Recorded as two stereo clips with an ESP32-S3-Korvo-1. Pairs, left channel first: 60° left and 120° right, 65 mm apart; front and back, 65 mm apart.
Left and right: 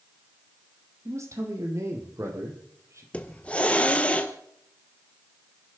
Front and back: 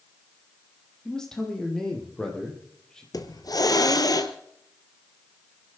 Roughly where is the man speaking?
Right.